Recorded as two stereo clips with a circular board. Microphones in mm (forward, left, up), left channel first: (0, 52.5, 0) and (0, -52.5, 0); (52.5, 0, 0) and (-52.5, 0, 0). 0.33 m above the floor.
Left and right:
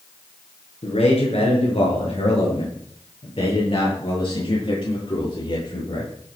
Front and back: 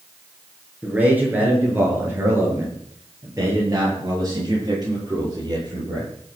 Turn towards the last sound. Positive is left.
turn(degrees=130)